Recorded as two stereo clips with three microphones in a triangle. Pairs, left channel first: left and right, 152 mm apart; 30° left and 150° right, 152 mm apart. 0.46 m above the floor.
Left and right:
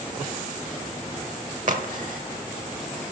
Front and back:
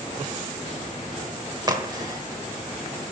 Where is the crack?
90° right, 1.0 m.